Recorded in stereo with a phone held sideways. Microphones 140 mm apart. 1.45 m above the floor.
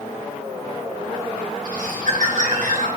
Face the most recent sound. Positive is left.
turn(degrees=-70)  # may be behind; listen again after turning